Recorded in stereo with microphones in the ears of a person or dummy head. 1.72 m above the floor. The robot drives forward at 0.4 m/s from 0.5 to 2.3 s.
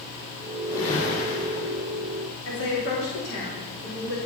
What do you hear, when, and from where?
0.7 s a whoosh: 40° left (ahead or behind), 6.5 m; by 1.8 s 45° left (ahead or behind), 6 m
2.5 s a woman speaking: 60° left (ahead or behind), 4 m